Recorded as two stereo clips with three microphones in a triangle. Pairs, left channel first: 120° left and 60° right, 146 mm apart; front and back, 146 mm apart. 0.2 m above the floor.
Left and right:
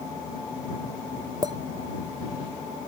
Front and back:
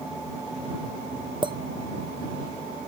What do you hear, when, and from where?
1.4 s a clink: 125° right